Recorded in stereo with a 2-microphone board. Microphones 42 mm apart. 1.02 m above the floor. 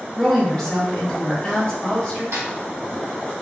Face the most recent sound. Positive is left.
turn(degrees=-80)